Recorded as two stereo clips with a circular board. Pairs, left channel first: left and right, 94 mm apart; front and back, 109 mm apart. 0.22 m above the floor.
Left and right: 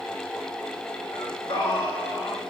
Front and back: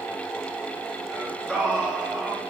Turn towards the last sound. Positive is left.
turn(degrees=90)